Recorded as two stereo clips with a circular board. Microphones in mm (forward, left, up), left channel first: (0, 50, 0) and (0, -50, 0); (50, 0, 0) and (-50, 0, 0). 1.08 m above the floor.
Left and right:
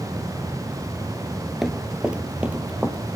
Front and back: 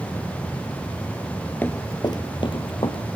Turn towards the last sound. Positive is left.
turn(degrees=-15)